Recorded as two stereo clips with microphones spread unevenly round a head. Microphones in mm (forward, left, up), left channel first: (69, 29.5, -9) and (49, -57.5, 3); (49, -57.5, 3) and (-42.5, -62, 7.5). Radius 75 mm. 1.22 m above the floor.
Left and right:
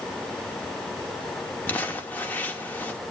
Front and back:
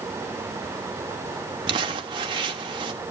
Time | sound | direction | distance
1.7 | crumpling | 145° left | 0.9 m